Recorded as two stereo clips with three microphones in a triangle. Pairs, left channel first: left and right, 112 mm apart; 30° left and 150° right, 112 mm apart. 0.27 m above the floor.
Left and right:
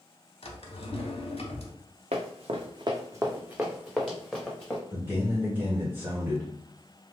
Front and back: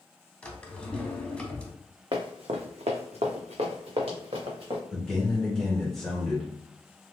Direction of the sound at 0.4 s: 110° left.